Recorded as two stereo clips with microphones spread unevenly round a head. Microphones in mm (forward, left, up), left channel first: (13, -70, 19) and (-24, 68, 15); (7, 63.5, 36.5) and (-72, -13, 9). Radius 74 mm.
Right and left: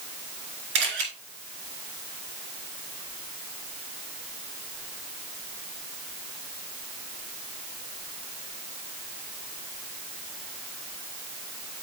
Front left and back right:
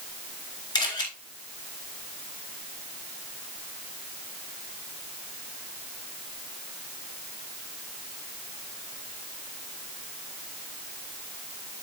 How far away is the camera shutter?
About 3.5 m.